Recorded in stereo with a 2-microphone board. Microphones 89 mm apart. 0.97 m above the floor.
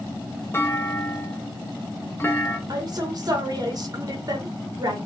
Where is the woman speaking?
45° right (ahead or behind), 1.1 m.